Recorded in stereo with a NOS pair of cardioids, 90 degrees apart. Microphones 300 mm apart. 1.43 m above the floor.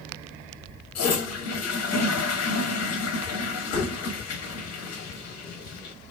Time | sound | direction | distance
0.9 | a toilet flushing | 60° left | 1.1 m